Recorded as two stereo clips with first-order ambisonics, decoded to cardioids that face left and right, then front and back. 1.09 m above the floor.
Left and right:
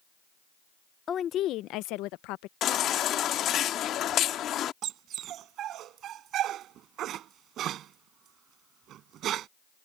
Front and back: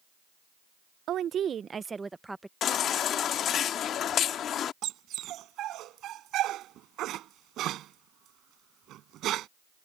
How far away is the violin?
No violin in this recording.